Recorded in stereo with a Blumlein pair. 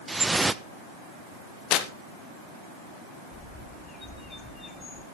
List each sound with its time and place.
0.1 s dripping: 10° right, 0.6 m
1.7 s tearing paper: 40° left, 1.0 m
3.3 s a bird: 15° left, 1.4 m